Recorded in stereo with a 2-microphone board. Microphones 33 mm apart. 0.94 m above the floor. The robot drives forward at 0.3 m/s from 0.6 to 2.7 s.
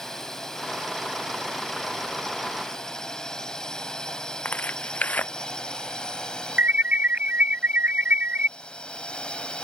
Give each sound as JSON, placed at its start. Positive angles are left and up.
{"t": 0.0, "sound": "a drone", "side_deg": 10}
{"t": 4.5, "sound": "tearing paper", "side_deg": 55}
{"t": 6.6, "sound": "an alarm", "side_deg": -55}